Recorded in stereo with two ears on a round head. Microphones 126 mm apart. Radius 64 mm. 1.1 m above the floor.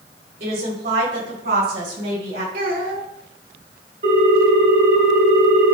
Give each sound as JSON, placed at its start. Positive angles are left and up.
{"t": 0.4, "sound": "a woman speaking", "side_deg": -75, "distance_m": 3.5}
{"t": 2.5, "sound": "a child speaking", "side_deg": -70, "distance_m": 2.0}
{"t": 4.0, "sound": "a ringtone", "side_deg": -55, "distance_m": 3.0}